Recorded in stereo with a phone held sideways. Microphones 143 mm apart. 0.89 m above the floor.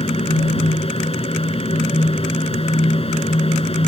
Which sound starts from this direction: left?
A fan, at 0.0 s.